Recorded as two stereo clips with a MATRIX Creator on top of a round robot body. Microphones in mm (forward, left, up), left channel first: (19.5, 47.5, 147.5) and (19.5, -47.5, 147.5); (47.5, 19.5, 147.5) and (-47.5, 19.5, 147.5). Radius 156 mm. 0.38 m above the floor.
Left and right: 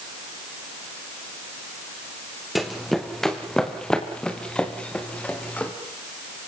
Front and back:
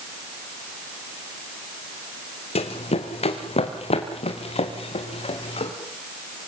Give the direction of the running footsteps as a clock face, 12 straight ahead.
12 o'clock.